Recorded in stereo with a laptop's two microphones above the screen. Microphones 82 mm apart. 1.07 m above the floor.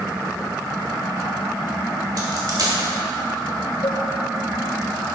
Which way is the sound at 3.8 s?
60° left (ahead or behind).